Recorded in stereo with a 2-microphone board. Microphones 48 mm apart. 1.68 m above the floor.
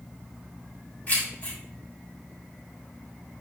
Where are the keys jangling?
30° left (ahead or behind), 4 m.